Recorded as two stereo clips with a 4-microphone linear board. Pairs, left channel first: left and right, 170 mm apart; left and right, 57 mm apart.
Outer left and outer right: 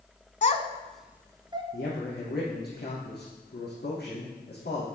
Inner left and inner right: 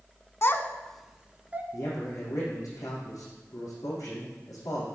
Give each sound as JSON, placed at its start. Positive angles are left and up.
{"t": 0.4, "sound": "a child speaking", "side_deg": 45, "distance_m": 0.8}
{"t": 1.7, "sound": "a man speaking", "side_deg": 70, "distance_m": 5.5}